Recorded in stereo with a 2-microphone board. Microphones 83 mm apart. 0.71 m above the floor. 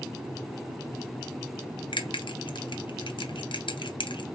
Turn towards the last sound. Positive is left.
turn(degrees=70)  # may be behind; listen again after turning